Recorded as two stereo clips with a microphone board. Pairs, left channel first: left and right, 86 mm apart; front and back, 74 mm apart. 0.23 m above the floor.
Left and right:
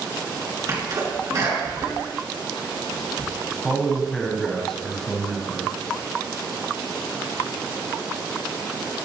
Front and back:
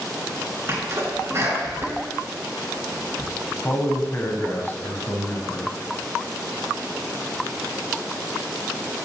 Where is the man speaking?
5° left, 1.4 m.